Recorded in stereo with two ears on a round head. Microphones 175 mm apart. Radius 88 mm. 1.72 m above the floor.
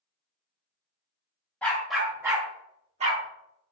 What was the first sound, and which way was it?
A dog barking, 5° left (ahead or behind).